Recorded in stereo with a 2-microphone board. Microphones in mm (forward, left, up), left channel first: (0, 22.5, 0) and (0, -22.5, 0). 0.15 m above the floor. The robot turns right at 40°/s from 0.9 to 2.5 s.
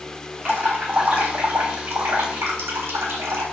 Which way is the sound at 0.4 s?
135° right.